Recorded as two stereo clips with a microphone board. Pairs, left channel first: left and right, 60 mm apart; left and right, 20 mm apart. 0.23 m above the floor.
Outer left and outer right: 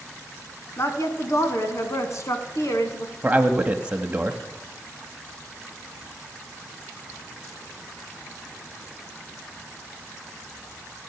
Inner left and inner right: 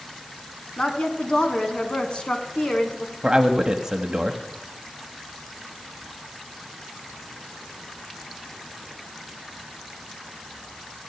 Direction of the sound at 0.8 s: 55° left (ahead or behind).